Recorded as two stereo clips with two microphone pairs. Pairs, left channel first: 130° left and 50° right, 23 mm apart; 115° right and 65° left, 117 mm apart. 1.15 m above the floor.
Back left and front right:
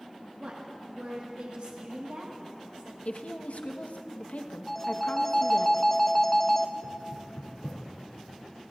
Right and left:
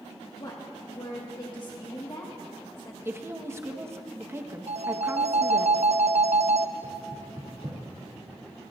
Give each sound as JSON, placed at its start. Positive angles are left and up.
{"t": 0.4, "sound": "a woman speaking", "azimuth_deg": -70, "distance_m": 1.5}
{"t": 3.0, "sound": "a woman speaking", "azimuth_deg": 130, "distance_m": 1.1}
{"t": 4.7, "sound": "a phone ringing", "azimuth_deg": 55, "distance_m": 0.6}
{"t": 6.8, "sound": "knocking", "azimuth_deg": 110, "distance_m": 2.5}